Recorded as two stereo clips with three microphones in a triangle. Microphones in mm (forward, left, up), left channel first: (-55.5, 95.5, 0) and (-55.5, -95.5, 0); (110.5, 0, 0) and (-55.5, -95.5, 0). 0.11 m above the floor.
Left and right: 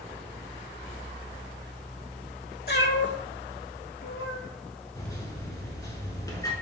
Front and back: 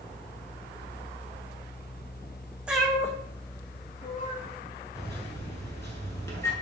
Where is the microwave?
70° left, 1.0 m.